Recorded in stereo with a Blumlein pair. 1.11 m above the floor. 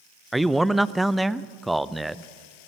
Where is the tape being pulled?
I don't hear tape being pulled.